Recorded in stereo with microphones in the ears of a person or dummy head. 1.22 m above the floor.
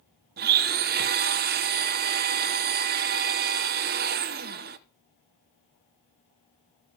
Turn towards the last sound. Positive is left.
turn(degrees=-50)  # may be behind; listen again after turning